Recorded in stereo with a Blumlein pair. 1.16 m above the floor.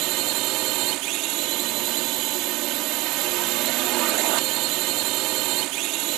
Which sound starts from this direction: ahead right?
A drone, at 0.0 s.